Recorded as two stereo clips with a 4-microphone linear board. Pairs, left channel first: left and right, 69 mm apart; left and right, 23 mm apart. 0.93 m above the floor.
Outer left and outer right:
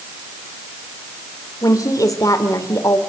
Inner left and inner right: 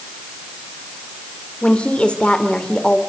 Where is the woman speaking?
60° left (ahead or behind), 2.5 m.